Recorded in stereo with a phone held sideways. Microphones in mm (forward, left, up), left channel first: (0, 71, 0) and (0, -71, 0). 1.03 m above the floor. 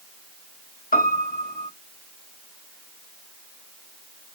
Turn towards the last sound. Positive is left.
turn(degrees=85)